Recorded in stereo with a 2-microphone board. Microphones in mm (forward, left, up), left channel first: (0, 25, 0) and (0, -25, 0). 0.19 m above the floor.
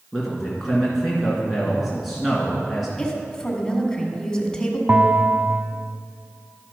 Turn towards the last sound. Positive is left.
turn(degrees=-35)  # may be behind; listen again after turning